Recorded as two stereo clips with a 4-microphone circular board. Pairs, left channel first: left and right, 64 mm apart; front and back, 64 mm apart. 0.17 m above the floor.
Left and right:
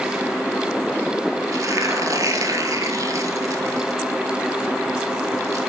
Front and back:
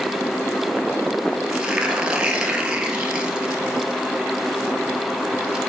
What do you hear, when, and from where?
1.5 s tearing paper: 105° right, 1.3 m